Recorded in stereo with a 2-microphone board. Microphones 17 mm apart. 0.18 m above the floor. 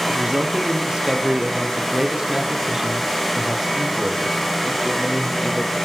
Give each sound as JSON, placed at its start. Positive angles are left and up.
{"t": 0.1, "sound": "a man speaking", "side_deg": -55, "distance_m": 5.0}